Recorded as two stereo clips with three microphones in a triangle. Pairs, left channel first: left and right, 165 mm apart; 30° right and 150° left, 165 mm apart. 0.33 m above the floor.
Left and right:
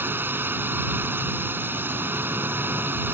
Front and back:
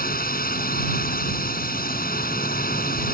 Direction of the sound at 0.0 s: 15° right.